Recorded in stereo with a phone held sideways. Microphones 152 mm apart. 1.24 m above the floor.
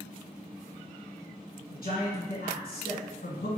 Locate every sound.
1.7 s a man speaking: 80° left, 1.4 m